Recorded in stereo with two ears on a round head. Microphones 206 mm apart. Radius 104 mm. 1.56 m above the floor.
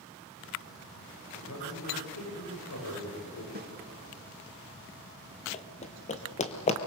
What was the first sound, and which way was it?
A man speaking, 75° left (ahead or behind).